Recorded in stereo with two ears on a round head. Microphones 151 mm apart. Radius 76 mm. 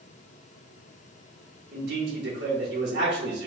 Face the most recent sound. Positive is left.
turn(degrees=-70)  # may be behind; listen again after turning